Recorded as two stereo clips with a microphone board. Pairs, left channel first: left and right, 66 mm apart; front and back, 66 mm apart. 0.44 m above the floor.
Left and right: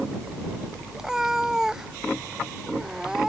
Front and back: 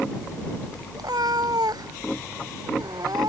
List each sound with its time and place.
0.9 s a cat meowing: 175° right